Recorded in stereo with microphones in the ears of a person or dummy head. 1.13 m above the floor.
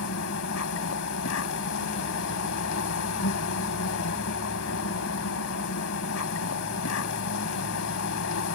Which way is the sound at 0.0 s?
75° left (ahead or behind).